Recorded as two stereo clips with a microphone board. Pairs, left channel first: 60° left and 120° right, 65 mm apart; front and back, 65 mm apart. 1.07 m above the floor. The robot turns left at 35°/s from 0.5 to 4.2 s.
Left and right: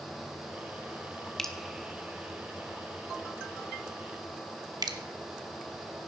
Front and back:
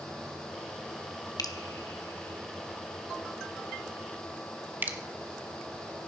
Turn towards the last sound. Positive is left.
turn(degrees=-120)